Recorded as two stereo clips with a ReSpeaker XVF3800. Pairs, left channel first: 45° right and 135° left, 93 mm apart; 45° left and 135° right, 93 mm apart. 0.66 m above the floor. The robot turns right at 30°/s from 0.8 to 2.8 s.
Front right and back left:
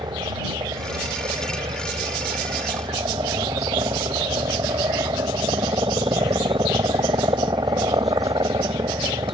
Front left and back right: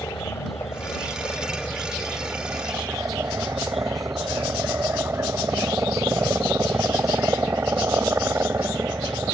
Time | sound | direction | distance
0.0 | a helicopter | 105° left | ?